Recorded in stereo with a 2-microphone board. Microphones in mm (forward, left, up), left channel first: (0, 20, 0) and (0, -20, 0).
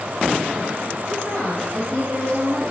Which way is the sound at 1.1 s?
35° left (ahead or behind).